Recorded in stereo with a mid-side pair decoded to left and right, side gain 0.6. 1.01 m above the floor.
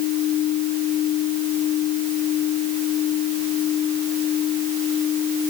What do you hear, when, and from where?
Only background noise.